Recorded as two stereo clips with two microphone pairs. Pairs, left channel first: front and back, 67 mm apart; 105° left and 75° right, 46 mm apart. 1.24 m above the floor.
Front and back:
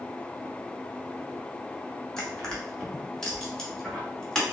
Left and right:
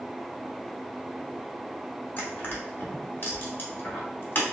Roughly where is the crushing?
Left.